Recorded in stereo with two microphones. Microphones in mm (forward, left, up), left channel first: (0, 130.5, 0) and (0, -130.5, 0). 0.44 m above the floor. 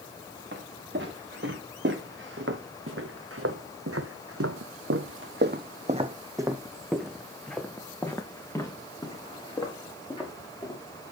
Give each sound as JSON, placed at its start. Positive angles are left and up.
{"t": 0.5, "sound": "footsteps", "side_deg": -45, "distance_m": 3.0}